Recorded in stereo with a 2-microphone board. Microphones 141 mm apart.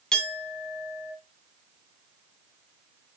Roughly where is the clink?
Centre.